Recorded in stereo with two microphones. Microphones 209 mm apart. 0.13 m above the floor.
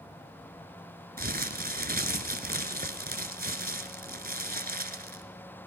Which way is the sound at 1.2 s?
45° right (ahead or behind).